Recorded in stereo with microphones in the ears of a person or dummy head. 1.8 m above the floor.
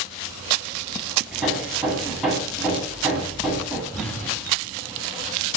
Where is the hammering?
5° right (ahead or behind), 8 m.